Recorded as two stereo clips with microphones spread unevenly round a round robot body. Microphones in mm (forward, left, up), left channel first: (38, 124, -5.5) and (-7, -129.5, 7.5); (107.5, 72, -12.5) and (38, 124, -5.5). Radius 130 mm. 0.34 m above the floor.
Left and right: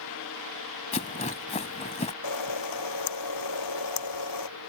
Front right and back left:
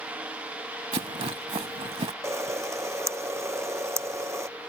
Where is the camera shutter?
90° left.